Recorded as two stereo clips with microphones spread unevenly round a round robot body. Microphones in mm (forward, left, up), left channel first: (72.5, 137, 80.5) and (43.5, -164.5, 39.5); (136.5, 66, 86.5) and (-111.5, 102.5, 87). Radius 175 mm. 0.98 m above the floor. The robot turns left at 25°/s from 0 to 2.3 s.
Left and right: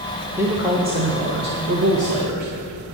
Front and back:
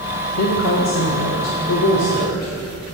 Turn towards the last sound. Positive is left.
turn(degrees=-60)